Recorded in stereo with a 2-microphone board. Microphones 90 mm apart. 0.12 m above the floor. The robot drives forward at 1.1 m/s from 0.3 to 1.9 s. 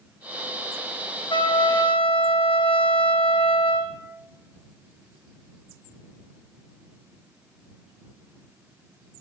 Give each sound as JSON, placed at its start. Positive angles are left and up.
{"t": 1.3, "sound": "a trumpet", "side_deg": 65, "distance_m": 2.5}